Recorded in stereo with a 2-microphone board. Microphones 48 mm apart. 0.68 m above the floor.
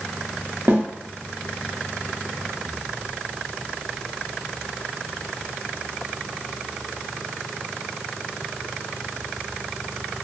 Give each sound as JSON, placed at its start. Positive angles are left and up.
{"t": 0.7, "sound": "a snare drum", "side_deg": -55, "distance_m": 1.0}